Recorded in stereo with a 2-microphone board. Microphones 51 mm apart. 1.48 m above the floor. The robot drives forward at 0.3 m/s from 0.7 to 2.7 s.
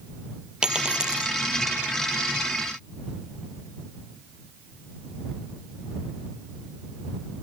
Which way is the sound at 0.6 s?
15° right (ahead or behind).